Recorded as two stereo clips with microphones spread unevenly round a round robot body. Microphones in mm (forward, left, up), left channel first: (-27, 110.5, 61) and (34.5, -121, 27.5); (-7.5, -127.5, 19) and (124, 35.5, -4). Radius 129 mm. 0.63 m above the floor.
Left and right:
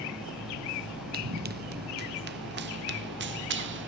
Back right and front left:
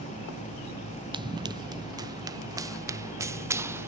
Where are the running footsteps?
20° right; by 3.9 s 30° right.